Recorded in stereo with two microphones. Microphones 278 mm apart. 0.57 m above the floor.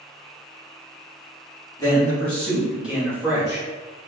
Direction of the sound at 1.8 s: 15° left (ahead or behind).